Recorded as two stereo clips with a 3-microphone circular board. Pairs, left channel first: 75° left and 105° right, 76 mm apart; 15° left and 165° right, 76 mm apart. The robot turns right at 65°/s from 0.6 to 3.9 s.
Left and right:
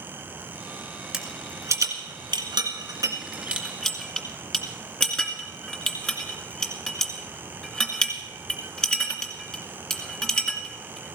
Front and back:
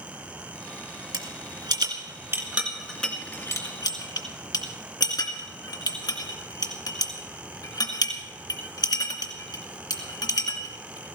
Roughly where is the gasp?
I don't hear a gasp.